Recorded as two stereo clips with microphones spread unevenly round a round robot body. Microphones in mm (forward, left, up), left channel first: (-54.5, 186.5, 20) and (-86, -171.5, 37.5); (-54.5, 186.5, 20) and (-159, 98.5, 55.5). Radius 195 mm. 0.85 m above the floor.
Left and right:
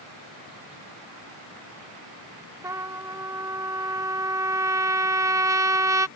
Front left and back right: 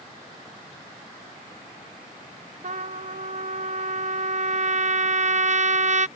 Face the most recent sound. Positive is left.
turn(degrees=-175)